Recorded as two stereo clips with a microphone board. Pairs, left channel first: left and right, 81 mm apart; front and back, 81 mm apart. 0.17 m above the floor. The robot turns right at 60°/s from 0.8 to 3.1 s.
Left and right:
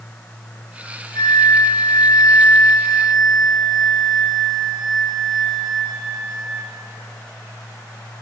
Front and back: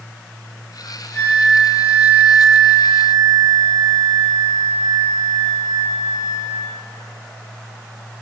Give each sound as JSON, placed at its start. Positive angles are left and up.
{"t": 1.1, "sound": "a flute", "azimuth_deg": 65, "distance_m": 2.5}